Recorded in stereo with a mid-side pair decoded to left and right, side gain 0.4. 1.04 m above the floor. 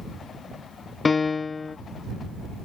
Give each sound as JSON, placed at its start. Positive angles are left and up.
{"t": 1.1, "sound": "a piano", "azimuth_deg": 40}